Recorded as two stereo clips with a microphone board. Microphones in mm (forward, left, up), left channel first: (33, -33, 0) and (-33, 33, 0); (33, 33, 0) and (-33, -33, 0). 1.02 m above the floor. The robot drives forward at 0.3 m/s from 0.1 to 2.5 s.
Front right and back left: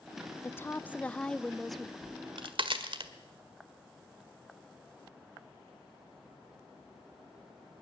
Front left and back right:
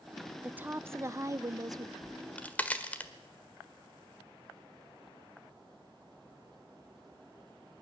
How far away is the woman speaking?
About 0.6 m.